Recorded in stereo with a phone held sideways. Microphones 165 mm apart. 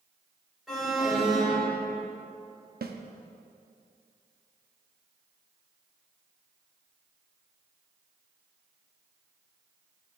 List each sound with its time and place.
0.7 s an alarm: centre (ahead or behind), 3.5 m
2.8 s a snare drum: 75° right (ahead or behind), 0.8 m